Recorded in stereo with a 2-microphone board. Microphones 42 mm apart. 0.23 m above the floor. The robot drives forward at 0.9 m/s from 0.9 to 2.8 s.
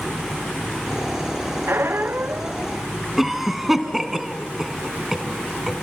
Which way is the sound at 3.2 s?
5° right (ahead or behind).